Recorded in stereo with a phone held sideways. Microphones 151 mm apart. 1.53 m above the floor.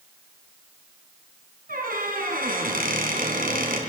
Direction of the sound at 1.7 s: 65° right (ahead or behind).